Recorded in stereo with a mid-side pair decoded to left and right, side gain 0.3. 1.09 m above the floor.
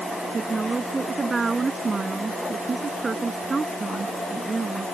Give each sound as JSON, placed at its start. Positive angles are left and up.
{"t": 0.3, "sound": "a woman speaking", "azimuth_deg": -45}